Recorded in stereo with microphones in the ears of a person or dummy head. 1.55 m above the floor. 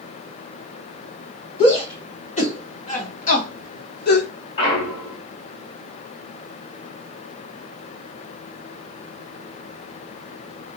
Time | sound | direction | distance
1.6 | a shout | 35° left (ahead or behind) | 1.8 m
4.6 | a clunk | 35° left (ahead or behind) | 1.2 m